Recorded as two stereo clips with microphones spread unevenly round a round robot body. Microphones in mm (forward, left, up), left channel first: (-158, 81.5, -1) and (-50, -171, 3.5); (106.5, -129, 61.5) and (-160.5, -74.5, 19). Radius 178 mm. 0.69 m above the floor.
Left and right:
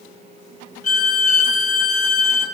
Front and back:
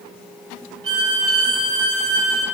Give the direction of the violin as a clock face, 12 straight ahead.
7 o'clock.